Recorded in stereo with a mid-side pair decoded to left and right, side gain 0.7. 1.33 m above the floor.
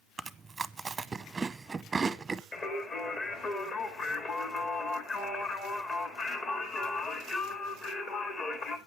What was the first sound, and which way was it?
Chewing, 15° right.